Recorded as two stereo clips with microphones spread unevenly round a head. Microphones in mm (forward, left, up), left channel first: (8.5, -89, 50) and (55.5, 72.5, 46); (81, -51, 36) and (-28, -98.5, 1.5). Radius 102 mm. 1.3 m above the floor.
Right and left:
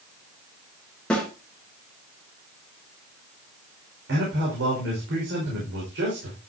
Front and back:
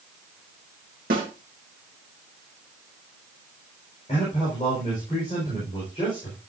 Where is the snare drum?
170° left, 3 m.